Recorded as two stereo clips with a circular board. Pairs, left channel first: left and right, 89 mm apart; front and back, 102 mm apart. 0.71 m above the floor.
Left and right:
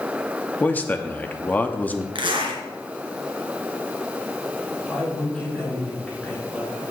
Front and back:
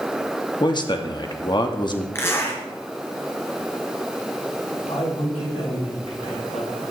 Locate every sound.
0.6 s a man speaking: 25° left, 0.9 m
2.1 s a zipper: 65° right, 2.0 m
4.9 s a man speaking: 10° left, 5.5 m